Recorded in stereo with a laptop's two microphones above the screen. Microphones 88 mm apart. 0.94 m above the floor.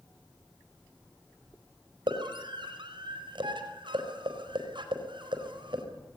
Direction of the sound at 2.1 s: 70° right (ahead or behind).